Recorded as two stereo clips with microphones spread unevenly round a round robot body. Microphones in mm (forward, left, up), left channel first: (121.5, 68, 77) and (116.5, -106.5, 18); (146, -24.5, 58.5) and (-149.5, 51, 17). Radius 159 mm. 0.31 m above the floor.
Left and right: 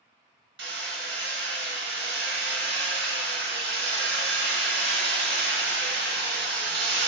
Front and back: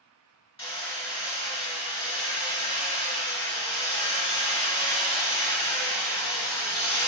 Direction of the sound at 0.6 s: 90° right.